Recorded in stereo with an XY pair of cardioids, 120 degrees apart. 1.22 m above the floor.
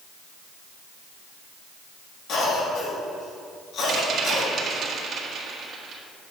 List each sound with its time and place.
2.3 s a cough: 65° left, 3 m
3.9 s a rattle: 45° right, 1.7 m